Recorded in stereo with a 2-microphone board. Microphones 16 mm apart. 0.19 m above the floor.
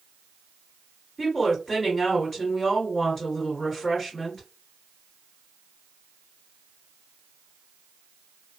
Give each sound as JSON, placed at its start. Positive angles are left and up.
{"t": 1.2, "sound": "a woman speaking", "side_deg": 15, "distance_m": 2.0}